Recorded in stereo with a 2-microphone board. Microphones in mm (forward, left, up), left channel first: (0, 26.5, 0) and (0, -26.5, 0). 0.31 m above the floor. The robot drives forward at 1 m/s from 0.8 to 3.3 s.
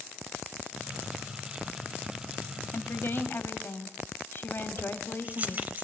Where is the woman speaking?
50° left (ahead or behind), 1.4 m; by 5.6 s 45° left (ahead or behind), 1.5 m.